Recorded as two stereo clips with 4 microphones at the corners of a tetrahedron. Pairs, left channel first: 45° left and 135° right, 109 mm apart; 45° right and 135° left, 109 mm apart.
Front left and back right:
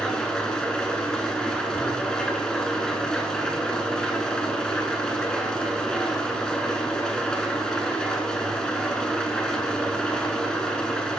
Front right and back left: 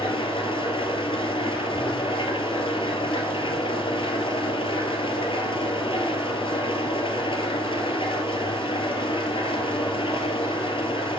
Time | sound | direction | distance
0.0 | an engine running | 40° right | 0.8 m